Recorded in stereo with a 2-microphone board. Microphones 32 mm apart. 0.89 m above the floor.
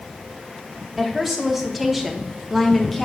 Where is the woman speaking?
15° right (ahead or behind), 1.3 m; by 3.1 s centre (ahead or behind), 0.9 m.